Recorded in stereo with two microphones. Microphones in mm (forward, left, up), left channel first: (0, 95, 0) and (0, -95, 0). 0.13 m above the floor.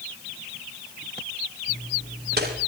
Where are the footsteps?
60° right (ahead or behind), 6 m.